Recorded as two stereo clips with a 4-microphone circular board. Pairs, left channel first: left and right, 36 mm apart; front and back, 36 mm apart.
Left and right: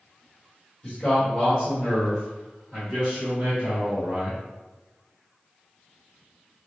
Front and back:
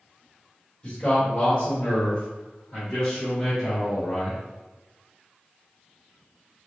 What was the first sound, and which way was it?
A man speaking, 45° left.